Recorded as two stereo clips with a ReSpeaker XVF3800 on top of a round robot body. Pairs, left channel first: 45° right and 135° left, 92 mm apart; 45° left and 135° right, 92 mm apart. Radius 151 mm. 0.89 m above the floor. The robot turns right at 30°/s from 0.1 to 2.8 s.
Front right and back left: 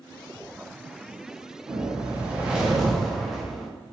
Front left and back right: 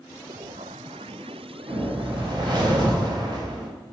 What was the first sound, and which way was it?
A whoosh, 170° right.